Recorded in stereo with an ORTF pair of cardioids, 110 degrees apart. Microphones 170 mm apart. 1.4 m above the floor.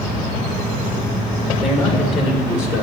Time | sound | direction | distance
1.6 | a man speaking | 45° left | 2.5 m